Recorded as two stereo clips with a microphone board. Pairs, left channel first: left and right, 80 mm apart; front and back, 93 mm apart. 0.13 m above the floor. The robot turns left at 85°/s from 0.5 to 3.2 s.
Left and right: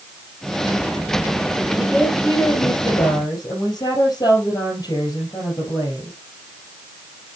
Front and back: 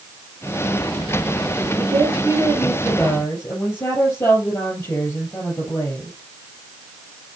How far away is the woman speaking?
About 4 m.